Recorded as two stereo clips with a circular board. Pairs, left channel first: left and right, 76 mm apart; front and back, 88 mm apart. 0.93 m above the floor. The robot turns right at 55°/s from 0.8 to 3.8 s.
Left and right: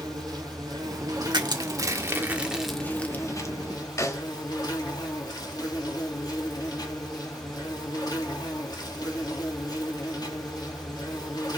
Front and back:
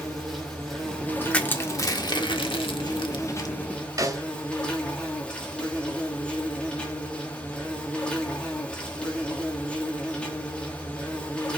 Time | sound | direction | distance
0.0 | an insect | 85° right | 3 m
1.3 | crushing | 80° right | 1.6 m
4.0 | a snare drum | 135° left | 1.5 m